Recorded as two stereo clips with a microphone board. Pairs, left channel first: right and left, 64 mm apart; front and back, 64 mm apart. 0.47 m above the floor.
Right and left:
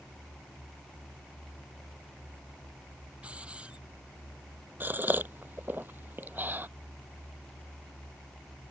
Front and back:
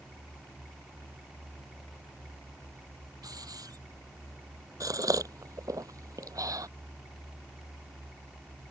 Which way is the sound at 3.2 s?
160° left.